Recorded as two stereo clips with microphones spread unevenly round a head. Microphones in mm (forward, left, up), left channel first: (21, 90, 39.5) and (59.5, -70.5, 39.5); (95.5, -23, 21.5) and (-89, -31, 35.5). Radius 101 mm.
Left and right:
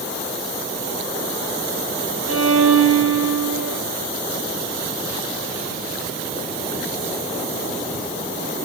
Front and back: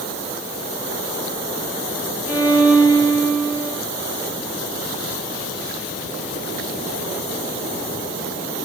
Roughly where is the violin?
Right.